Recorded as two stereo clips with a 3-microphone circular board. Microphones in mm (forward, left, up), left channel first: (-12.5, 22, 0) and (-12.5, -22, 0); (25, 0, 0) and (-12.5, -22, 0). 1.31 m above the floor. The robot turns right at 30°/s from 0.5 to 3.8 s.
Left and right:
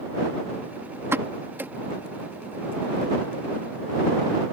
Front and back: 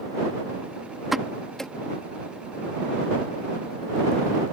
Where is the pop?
65° right; by 1.7 s 45° right.